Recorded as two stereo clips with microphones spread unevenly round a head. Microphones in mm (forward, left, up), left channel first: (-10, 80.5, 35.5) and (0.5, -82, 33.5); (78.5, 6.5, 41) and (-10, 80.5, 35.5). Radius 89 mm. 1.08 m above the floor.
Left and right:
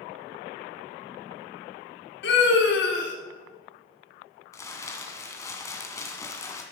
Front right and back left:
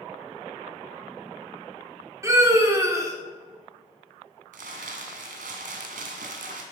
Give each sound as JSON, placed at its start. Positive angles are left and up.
{"t": 2.2, "sound": "a scream", "azimuth_deg": 75, "distance_m": 4.0}
{"t": 4.5, "sound": "crumpling", "azimuth_deg": 165, "distance_m": 1.8}